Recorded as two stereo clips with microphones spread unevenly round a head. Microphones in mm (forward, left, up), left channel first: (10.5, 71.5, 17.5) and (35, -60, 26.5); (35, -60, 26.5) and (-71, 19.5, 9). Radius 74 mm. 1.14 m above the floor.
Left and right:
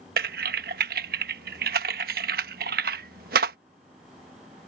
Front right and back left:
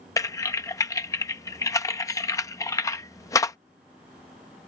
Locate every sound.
0.2 s typing on a keyboard: 105° right